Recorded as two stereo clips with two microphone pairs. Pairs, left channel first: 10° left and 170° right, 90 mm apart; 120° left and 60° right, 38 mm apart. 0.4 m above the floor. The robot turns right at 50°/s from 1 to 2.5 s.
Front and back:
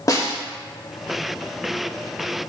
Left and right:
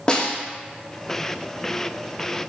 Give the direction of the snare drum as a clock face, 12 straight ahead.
10 o'clock.